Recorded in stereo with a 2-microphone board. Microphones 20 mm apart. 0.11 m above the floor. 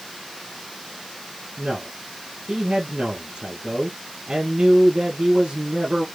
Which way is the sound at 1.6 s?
50° right (ahead or behind).